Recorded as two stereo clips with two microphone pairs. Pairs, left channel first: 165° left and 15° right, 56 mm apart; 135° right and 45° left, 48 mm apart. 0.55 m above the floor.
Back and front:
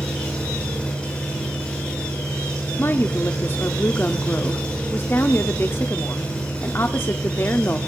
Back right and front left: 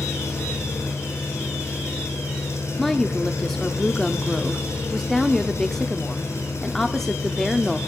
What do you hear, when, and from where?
0.0 s an engine running: 125° right, 8.5 m
2.8 s a woman speaking: 145° left, 1.0 m